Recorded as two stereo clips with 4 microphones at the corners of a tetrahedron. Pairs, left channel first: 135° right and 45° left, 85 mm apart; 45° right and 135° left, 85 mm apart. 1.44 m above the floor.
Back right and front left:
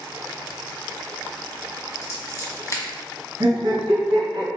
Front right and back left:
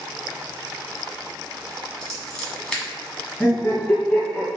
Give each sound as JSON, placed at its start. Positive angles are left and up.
{"t": 2.0, "sound": "scissors", "azimuth_deg": -120, "distance_m": 1.6}
{"t": 3.4, "sound": "laughter", "azimuth_deg": 25, "distance_m": 1.8}